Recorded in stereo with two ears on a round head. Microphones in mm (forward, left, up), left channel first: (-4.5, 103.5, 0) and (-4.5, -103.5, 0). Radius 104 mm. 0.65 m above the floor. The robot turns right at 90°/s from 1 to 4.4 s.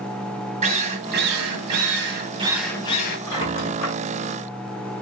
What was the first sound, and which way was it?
A drill, 150° right.